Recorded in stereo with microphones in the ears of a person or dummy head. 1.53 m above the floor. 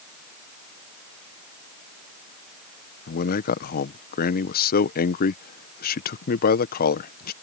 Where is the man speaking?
50° left (ahead or behind).